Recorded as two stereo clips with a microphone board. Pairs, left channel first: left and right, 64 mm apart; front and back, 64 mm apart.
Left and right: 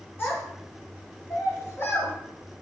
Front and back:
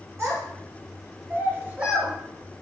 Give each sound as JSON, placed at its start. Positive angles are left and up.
{"t": 0.2, "sound": "a child speaking", "azimuth_deg": 140, "distance_m": 1.9}